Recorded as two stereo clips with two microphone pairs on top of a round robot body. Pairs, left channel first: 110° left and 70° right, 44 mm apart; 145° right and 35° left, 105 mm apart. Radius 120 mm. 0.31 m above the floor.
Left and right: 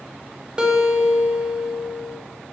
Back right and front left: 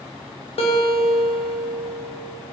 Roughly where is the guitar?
Behind right.